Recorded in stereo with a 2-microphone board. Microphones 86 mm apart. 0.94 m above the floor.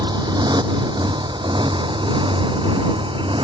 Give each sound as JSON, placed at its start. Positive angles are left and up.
{"t": 0.0, "sound": "a motorcycle", "side_deg": -55}